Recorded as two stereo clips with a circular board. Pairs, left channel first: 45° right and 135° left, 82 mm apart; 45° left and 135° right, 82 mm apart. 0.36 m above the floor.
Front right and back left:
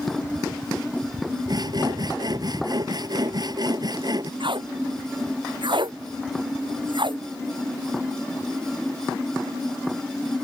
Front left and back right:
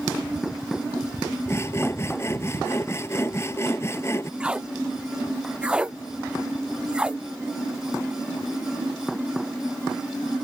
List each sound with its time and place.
1.5 s sawing: 100° left
4.4 s tape being pulled: 145° left